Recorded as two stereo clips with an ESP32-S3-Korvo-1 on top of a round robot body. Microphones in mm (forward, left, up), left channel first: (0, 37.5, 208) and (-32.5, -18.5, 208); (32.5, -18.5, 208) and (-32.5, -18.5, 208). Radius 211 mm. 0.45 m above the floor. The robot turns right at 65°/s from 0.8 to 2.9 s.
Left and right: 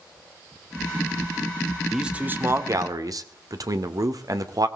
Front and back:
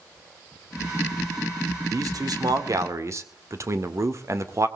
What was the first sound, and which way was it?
A man speaking, 155° left.